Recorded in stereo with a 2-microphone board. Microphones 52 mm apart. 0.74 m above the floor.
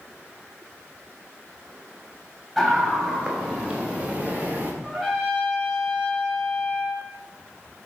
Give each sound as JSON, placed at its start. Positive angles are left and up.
{"t": 2.6, "sound": "a scream", "side_deg": -10, "distance_m": 5.0}
{"t": 4.8, "sound": "a trumpet", "side_deg": -10, "distance_m": 4.5}